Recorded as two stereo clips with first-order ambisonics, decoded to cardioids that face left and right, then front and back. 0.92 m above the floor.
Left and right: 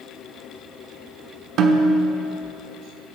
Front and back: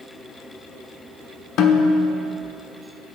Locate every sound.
1.6 s a snare drum: 45° right, 1.0 m